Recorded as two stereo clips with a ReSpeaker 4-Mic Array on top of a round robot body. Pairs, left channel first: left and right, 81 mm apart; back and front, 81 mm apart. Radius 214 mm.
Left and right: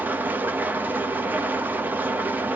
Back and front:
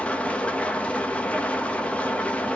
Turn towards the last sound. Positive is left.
turn(degrees=-125)